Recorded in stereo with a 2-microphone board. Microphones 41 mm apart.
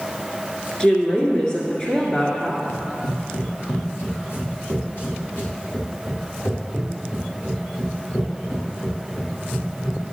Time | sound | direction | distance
0.8 | a woman speaking | 15° left (ahead or behind) | 1.6 m
2.7 | running footsteps | 75° left (ahead or behind) | 2.0 m